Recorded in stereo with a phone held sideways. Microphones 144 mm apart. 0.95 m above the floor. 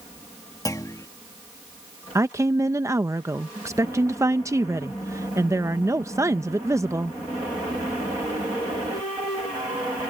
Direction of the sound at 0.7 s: 25° left (ahead or behind).